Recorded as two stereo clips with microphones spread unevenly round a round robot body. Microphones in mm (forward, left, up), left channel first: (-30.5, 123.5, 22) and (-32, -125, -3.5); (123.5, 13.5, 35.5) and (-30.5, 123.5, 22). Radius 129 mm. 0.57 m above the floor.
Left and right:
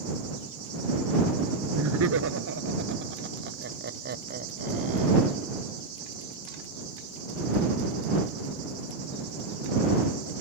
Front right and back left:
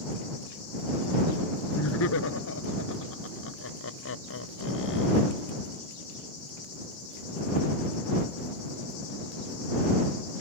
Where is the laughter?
50° right; by 5.4 s 25° right.